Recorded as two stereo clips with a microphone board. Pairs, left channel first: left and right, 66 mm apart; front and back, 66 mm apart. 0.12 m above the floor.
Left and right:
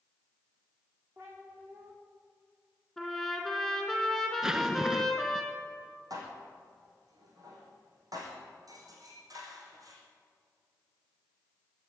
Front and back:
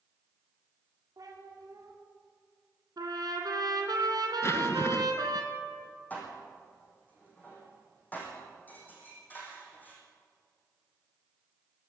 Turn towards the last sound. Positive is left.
turn(degrees=-65)